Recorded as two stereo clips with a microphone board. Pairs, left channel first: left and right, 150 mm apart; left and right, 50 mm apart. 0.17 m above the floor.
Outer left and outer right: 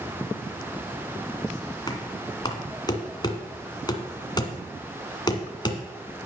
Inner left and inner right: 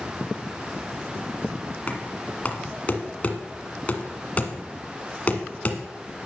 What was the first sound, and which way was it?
Knocking, 30° left (ahead or behind).